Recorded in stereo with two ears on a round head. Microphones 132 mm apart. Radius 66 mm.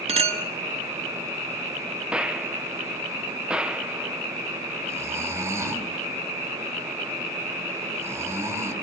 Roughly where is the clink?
Right.